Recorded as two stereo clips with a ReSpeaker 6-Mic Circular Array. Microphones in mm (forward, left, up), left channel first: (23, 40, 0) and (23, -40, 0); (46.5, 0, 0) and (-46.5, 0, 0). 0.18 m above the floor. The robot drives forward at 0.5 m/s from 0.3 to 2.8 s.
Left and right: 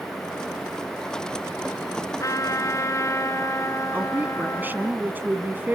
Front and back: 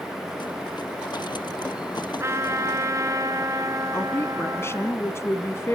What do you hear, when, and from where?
2.2 s a trumpet: 125° left, 2 m; by 4.9 s 135° left, 2.5 m
3.9 s a woman speaking: 40° right, 1.9 m